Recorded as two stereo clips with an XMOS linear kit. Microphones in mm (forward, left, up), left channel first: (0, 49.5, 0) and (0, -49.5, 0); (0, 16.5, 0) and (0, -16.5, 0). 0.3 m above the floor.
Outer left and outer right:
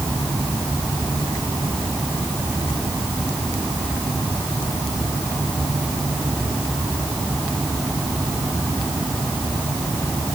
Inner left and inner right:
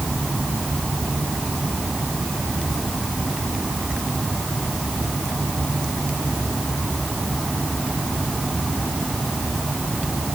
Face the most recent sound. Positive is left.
No sound to turn to.